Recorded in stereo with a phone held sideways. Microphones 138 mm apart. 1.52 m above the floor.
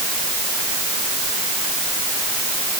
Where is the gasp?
I don't hear a gasp.